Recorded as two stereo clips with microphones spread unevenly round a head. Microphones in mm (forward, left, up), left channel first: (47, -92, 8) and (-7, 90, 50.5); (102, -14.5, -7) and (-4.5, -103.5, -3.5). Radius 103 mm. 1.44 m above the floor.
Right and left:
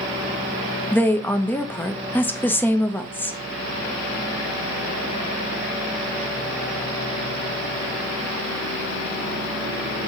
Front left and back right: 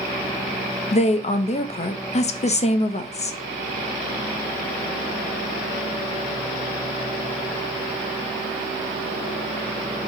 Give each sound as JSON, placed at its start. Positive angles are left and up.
{"t": 0.9, "sound": "a woman speaking", "azimuth_deg": 0, "distance_m": 0.6}